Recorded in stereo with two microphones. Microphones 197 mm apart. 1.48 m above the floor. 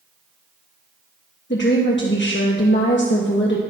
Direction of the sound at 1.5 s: 60° left (ahead or behind).